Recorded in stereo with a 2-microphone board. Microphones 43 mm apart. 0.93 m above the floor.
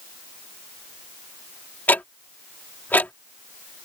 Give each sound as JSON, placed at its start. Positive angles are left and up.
{"t": 1.9, "sound": "ticking", "side_deg": 45}